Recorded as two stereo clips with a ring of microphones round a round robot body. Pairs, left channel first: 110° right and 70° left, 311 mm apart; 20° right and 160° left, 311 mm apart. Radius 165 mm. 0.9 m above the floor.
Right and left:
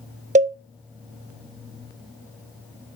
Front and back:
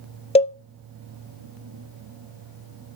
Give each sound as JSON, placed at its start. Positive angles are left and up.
{"t": 0.3, "sound": "a cowbell", "azimuth_deg": 25, "distance_m": 0.6}